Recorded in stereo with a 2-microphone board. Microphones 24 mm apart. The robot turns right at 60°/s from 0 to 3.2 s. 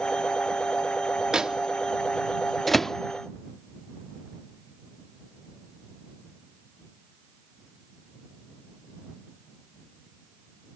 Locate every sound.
1.3 s a microwave: 35° right (ahead or behind); by 3.0 s 20° left (ahead or behind)